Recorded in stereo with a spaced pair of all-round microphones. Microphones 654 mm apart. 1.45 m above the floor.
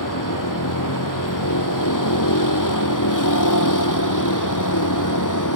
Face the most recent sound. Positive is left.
turn(degrees=30)  # may be behind; listen again after turning